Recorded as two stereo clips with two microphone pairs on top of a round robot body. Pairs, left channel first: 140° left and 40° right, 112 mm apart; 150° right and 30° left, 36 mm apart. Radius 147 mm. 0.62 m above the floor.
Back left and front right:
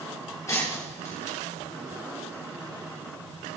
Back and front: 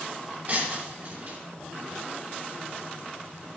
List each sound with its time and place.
0.5 s breaking glass: 75° left, 4 m